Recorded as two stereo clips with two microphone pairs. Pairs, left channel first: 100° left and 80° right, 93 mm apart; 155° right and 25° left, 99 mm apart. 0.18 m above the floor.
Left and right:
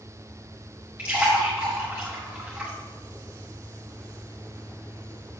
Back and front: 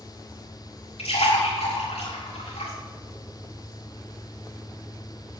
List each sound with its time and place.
1.0 s a splash: 155° right, 3.5 m